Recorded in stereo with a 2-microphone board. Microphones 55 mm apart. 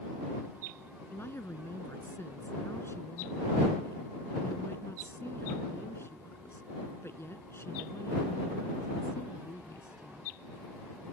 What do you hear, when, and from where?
1.1 s a woman speaking: 45° left (ahead or behind)